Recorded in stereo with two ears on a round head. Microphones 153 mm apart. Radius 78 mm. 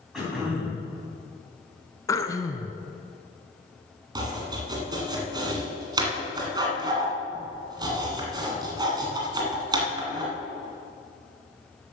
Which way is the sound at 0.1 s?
5° right (ahead or behind).